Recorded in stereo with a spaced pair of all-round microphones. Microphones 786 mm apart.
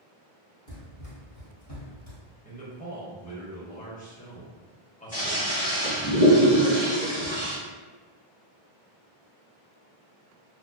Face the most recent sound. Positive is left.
turn(degrees=10)  # may be behind; listen again after turning